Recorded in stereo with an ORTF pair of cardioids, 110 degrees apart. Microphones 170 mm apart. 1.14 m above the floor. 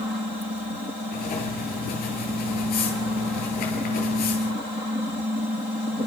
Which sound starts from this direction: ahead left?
Writing, at 1.1 s.